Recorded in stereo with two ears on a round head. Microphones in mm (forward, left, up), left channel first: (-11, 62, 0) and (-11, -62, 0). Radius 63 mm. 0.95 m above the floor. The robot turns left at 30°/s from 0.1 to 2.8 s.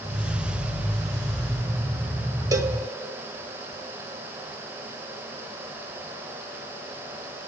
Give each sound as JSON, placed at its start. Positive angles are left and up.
{"t": 2.5, "sound": "a cowbell", "side_deg": -25, "distance_m": 1.2}